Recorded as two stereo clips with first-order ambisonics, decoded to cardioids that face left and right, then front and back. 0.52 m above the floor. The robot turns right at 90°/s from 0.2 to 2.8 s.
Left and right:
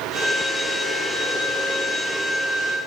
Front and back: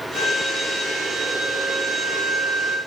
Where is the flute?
45° right, 9.5 m; by 2.8 s 175° right, 9.5 m.